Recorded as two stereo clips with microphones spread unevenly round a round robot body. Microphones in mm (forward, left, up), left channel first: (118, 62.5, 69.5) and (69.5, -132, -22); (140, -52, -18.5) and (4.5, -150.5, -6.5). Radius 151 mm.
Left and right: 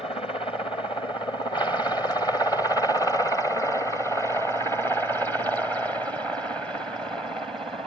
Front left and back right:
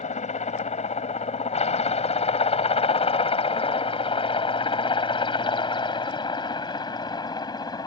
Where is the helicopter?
Straight ahead; by 7.9 s 25° right.